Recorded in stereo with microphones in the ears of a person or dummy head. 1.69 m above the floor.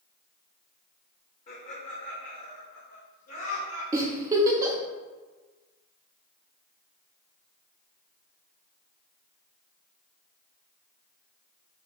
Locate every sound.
1.5 s laughter: 40° left (ahead or behind), 0.8 m; by 3.8 s 85° left, 1.8 m
3.9 s a giggle: 15° right (ahead or behind), 0.5 m